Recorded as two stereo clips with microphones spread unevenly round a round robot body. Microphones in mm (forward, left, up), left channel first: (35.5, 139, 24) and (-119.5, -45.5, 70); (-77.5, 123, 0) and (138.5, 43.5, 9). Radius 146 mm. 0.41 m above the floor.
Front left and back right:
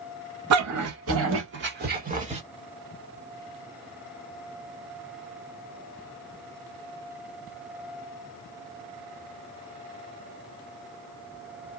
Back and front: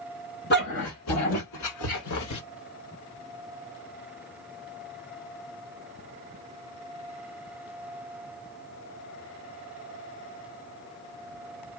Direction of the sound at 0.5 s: 140° right.